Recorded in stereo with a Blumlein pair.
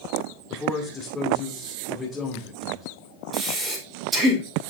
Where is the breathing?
20° right, 2.5 m.